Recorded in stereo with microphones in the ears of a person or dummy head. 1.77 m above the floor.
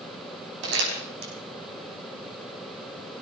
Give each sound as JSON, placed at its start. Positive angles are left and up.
{"t": 0.6, "sound": "crumpling", "side_deg": -60, "distance_m": 5.0}